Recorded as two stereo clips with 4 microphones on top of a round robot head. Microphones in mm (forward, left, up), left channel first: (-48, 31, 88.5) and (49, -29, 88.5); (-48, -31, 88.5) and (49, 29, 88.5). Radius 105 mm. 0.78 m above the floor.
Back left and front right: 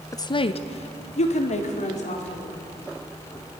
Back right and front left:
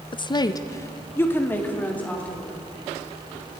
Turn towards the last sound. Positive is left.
turn(degrees=130)